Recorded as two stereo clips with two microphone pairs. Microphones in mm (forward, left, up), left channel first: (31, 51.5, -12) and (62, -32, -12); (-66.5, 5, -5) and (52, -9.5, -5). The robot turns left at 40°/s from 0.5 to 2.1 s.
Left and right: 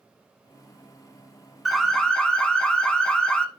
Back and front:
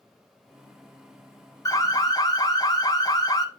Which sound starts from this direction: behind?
An alarm, at 1.6 s.